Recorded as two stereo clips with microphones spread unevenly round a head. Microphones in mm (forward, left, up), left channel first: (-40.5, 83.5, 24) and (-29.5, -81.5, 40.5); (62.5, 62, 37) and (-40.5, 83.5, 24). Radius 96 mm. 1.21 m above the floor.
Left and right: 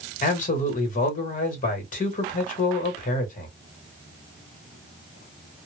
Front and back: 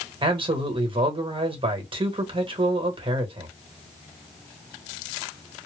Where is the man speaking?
135° left, 1.2 m.